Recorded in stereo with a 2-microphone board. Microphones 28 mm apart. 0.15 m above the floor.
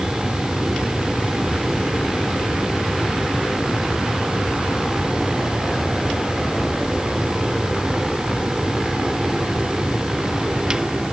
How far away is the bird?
I don't hear a bird.